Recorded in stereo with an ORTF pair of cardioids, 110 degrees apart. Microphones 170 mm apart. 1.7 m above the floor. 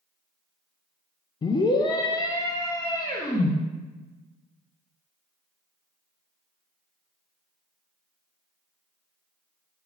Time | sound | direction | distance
1.4 | a scream | 25° left | 0.7 m